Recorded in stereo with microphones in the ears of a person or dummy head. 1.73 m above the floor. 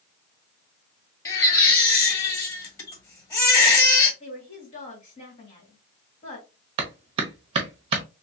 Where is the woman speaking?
40° left (ahead or behind), 1.7 m.